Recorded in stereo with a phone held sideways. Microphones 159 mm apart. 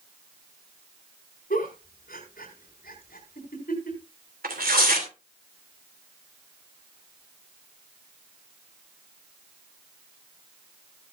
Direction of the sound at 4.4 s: 80° right.